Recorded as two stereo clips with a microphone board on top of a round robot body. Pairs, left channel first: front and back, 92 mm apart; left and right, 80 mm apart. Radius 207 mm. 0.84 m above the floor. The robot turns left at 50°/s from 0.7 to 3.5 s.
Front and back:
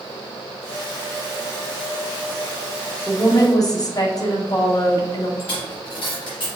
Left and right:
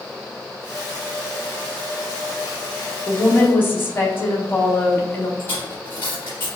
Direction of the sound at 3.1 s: 55° left.